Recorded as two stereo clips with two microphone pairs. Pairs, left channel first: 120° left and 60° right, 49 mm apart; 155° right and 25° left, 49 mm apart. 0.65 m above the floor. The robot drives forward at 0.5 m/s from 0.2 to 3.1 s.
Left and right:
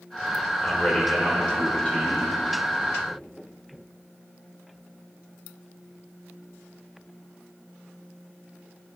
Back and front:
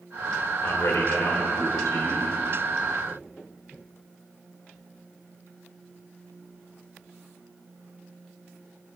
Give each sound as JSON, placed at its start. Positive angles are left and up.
{"t": 0.6, "sound": "a man speaking", "azimuth_deg": -175, "distance_m": 2.5}